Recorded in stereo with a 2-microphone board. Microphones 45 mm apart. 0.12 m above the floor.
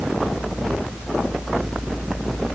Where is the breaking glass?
I don't hear breaking glass.